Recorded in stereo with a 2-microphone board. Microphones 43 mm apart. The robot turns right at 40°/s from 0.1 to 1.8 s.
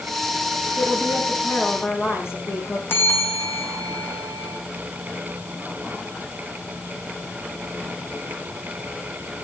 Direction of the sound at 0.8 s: 30° left.